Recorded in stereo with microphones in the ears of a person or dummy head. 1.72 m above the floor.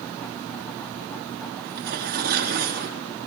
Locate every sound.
1.6 s tearing paper: 55° right (ahead or behind), 2.5 m